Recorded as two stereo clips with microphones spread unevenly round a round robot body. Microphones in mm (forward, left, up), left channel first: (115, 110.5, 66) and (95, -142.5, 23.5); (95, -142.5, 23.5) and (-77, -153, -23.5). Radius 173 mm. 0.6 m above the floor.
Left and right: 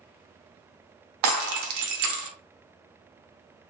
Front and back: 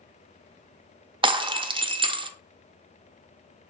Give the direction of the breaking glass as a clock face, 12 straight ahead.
4 o'clock.